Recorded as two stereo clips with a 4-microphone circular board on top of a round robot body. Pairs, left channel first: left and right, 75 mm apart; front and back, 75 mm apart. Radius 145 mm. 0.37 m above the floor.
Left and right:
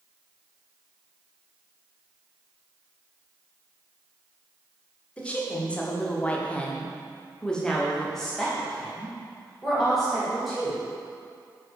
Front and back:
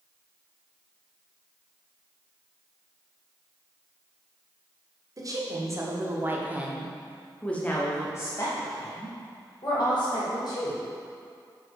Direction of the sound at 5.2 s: 160° left.